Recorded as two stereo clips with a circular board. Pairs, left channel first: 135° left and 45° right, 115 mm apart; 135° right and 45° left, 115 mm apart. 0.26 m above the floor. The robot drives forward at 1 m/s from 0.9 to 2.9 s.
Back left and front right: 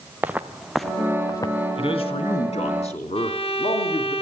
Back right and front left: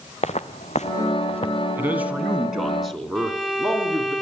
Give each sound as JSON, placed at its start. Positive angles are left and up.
{"t": 0.2, "sound": "footsteps", "azimuth_deg": -120, "distance_m": 1.3}
{"t": 1.8, "sound": "a man speaking", "azimuth_deg": 115, "distance_m": 2.5}
{"t": 3.1, "sound": "a violin", "azimuth_deg": 135, "distance_m": 0.8}